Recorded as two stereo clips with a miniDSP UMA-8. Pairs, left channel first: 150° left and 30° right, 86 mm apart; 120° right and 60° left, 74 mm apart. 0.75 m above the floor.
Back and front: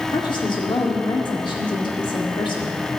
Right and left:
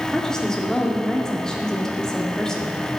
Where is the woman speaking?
160° left, 1.8 m.